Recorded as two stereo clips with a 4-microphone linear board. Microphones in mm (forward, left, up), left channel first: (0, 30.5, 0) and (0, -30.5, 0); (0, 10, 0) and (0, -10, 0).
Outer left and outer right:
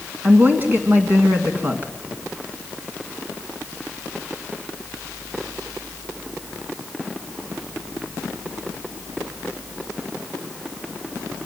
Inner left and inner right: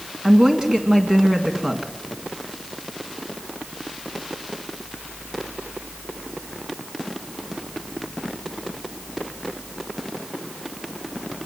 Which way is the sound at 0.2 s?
30° right (ahead or behind).